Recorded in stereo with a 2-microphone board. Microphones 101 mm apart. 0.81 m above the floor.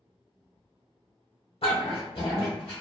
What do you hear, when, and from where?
1.6 s a dog barking: 75° left (ahead or behind), 1.0 m